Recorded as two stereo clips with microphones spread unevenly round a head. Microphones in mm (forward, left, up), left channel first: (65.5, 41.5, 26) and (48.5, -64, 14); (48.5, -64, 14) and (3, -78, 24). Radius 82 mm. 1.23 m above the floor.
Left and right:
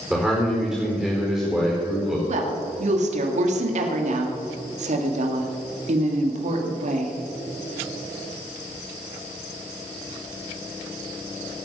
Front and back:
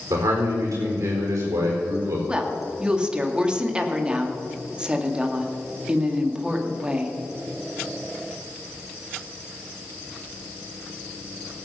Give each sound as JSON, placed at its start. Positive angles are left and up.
{"t": 0.1, "sound": "a man speaking", "azimuth_deg": 175, "distance_m": 4.5}
{"t": 2.3, "sound": "a woman speaking", "azimuth_deg": -95, "distance_m": 2.0}